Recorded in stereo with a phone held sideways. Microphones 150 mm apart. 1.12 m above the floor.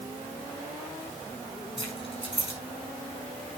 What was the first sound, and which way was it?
Keys jangling, 35° left (ahead or behind).